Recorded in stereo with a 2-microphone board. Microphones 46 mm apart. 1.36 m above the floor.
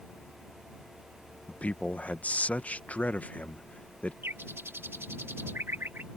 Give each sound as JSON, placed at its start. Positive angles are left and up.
{"t": 1.5, "sound": "a man speaking", "side_deg": 30}
{"t": 4.2, "sound": "a bird", "side_deg": -65}